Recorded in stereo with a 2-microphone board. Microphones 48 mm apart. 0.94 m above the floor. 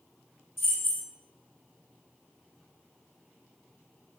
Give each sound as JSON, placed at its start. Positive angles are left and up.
{"t": 0.6, "sound": "keys jangling", "side_deg": 65, "distance_m": 0.8}